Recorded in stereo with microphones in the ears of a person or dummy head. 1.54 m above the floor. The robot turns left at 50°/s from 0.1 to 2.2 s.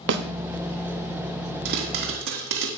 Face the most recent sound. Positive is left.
turn(degrees=-50)  # may be behind; listen again after turning